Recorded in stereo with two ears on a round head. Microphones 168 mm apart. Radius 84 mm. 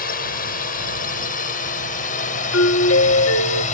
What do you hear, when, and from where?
0.0 s a drone: 50° left (ahead or behind); by 3.7 s 40° left (ahead or behind)
2.5 s a doorbell: 75° left (ahead or behind)